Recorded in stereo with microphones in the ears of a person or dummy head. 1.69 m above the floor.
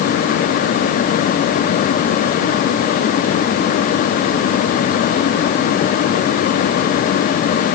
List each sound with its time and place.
Only background noise.